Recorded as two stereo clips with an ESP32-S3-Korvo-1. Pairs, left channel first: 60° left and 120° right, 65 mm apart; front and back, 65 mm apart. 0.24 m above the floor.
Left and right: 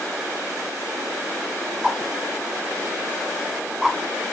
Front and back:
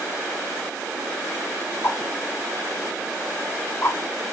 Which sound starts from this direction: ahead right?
A whoosh, at 1.8 s.